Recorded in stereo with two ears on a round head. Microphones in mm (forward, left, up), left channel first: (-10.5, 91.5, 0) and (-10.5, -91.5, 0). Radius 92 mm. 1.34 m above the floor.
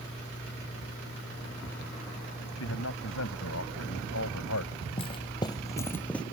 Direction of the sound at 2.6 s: 80° left.